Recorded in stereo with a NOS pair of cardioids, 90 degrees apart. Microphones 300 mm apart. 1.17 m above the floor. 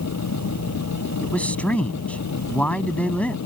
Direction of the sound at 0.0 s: 60° left.